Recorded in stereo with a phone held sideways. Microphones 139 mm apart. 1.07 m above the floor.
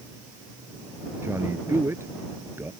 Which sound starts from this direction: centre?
A man speaking, at 1.2 s.